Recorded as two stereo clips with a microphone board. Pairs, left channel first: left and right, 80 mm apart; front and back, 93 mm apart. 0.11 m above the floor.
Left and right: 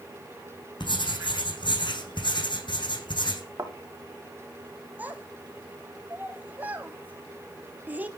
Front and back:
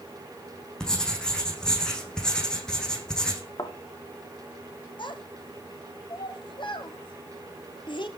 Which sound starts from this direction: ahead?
A child speaking, at 5.0 s.